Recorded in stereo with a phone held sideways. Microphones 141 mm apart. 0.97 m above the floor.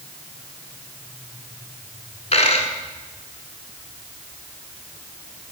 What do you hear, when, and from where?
2.3 s a dropped coin: 50° left (ahead or behind), 1.4 m